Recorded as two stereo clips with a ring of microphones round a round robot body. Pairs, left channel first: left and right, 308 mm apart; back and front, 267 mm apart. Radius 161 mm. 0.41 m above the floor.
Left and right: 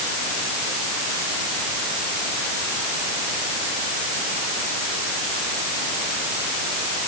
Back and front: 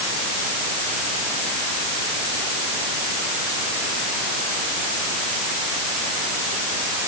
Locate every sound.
Only background noise.